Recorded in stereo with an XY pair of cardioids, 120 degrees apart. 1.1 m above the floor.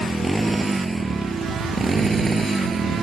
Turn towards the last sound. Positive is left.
turn(degrees=-30)